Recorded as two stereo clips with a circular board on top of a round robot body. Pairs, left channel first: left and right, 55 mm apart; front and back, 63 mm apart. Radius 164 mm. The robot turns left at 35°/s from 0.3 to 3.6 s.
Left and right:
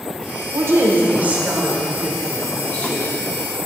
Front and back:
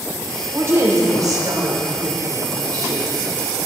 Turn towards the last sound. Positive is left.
turn(degrees=125)